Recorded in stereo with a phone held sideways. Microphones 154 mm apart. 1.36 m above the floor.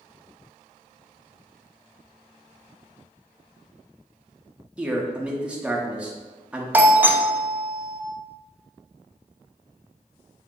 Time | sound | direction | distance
4.8 | a man speaking | 10° right (ahead or behind) | 0.8 m
6.7 | a doorbell | 10° right (ahead or behind) | 0.5 m